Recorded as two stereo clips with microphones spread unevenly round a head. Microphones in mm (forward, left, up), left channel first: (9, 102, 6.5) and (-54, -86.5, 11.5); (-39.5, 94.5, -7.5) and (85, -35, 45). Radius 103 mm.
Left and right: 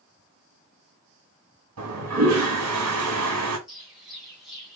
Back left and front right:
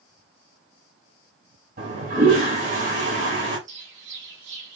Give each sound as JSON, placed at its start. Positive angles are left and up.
{"t": 1.8, "sound": "a toilet flushing", "azimuth_deg": -100, "distance_m": 2.0}
{"t": 3.7, "sound": "a bird", "azimuth_deg": -20, "distance_m": 1.6}